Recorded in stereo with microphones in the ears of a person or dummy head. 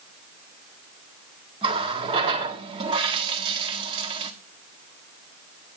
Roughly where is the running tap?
Right.